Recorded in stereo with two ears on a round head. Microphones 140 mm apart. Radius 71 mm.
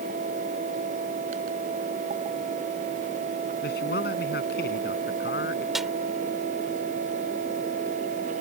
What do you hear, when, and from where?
3.6 s a man speaking: 75° left (ahead or behind)
5.8 s a snare drum: centre (ahead or behind)